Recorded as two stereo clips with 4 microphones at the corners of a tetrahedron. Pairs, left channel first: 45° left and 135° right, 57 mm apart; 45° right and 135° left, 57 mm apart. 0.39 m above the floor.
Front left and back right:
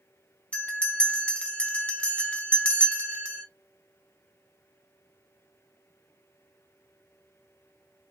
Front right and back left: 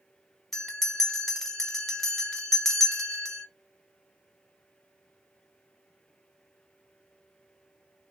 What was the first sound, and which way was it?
A bell, 35° left.